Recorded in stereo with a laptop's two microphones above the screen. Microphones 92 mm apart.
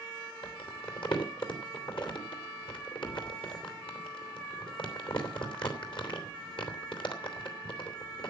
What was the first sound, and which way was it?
Crumpling, 65° left (ahead or behind).